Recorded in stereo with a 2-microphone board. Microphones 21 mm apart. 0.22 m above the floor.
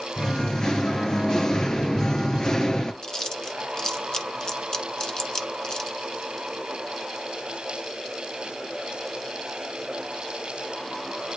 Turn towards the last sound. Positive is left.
turn(degrees=30)  # may be behind; listen again after turning